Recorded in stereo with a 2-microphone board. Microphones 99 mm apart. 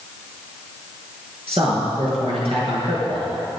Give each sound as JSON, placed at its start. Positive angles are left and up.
{"t": 1.5, "sound": "a man speaking", "side_deg": -75, "distance_m": 5.5}